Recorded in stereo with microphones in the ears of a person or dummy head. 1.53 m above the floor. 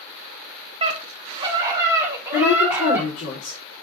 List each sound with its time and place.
0.8 s a scream: 30° right (ahead or behind), 2 m; by 3.1 s 10° right (ahead or behind), 4 m
2.3 s a woman speaking: 60° left (ahead or behind), 4 m